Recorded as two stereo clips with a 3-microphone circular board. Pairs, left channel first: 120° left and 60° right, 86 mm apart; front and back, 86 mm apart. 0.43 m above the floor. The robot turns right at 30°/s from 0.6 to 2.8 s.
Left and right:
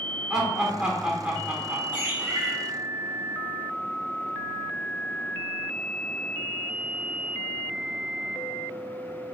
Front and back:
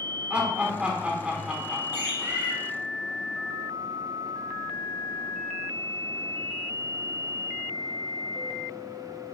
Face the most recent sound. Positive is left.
turn(degrees=-100)